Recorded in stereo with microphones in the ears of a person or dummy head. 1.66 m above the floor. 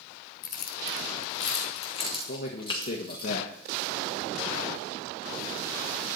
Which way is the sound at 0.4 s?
50° left (ahead or behind).